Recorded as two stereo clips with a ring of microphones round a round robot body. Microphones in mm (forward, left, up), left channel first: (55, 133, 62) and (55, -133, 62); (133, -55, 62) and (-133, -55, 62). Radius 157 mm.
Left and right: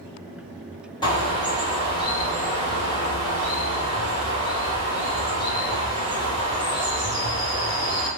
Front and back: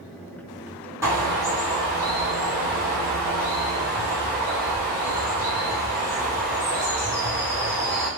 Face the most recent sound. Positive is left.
turn(degrees=120)